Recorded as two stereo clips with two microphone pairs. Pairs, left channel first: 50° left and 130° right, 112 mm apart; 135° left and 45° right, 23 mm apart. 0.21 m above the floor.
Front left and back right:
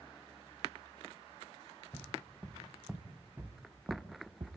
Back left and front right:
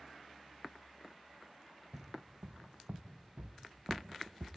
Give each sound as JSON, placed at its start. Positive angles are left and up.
{"t": 1.9, "sound": "footsteps", "azimuth_deg": -20, "distance_m": 3.0}